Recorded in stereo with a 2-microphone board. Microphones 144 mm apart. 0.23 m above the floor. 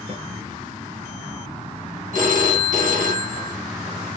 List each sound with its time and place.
0.1 s a snare drum: 55° right (ahead or behind), 2 m
2.1 s a phone ringing: 70° right (ahead or behind), 1.6 m